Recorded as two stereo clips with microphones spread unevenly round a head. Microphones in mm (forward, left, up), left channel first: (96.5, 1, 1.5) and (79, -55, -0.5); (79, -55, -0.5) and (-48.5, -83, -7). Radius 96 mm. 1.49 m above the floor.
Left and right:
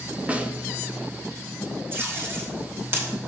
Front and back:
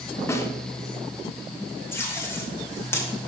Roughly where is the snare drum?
Ahead right.